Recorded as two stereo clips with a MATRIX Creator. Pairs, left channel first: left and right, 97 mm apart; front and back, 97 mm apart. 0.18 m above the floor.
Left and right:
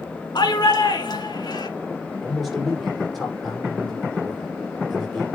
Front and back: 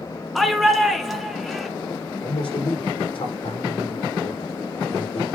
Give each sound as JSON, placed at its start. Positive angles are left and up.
{"t": 0.3, "sound": "a shout", "azimuth_deg": 90, "distance_m": 2.0}
{"t": 2.2, "sound": "a man speaking", "azimuth_deg": 0, "distance_m": 7.5}